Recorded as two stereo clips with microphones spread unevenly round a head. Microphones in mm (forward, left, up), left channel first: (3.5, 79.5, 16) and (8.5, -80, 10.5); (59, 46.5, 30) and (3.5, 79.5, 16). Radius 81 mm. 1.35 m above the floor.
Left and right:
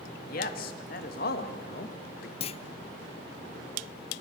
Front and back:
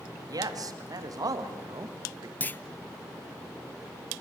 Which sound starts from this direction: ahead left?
A clunk, at 2.4 s.